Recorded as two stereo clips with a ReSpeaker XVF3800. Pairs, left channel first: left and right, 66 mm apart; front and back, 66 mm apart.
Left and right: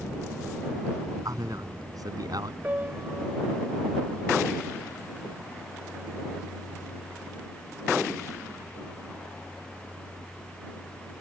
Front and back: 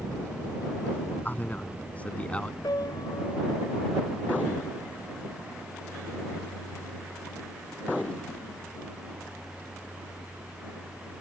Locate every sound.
1.2 s a man speaking: 65° right; by 2.5 s 75° right
2.6 s a piano: 25° right